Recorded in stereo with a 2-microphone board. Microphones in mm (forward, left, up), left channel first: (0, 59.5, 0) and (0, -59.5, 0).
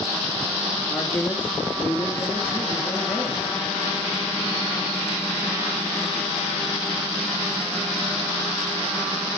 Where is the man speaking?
15° left (ahead or behind), 2 m.